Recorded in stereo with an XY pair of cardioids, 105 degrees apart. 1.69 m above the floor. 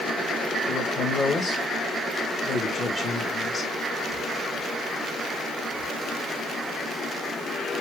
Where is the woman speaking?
30° left, 3 m.